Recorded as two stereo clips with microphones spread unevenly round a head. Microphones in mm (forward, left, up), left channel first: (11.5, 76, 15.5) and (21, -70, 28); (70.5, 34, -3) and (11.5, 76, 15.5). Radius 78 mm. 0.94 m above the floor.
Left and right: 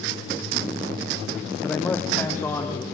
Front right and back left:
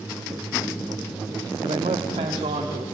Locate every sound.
1.6 s a man speaking: 175° left, 1.3 m; by 2.8 s 170° left, 2.5 m